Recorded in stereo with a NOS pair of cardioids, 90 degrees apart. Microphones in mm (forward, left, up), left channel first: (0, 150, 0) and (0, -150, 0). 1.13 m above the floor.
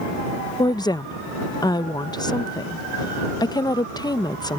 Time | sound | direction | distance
0.6 | a woman speaking | 15° left | ?